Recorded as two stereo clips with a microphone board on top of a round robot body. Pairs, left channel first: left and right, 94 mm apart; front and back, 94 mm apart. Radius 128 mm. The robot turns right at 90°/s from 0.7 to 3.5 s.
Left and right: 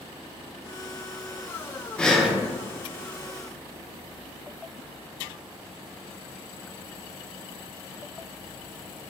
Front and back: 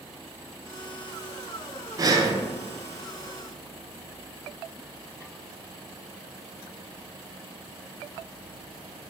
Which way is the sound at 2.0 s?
165° left.